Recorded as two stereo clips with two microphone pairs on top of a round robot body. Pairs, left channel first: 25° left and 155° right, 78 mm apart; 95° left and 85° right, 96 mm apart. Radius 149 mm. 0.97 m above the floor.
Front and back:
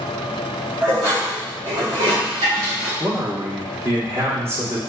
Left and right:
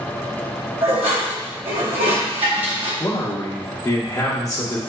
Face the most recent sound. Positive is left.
turn(degrees=145)